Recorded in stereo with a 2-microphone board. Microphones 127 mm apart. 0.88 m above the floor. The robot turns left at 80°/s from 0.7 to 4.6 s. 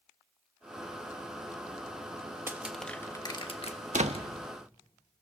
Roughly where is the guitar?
No guitar in this recording.